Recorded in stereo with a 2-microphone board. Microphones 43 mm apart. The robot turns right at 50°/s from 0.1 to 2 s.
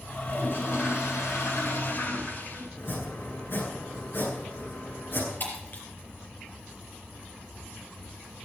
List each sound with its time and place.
0.2 s a toilet flushing: 40° left, 7.5 m; by 2.7 s 130° left, 7.5 m
2.8 s chopping: 55° left (ahead or behind), 8.5 m
5.4 s breaking glass: 45° left (ahead or behind), 4 m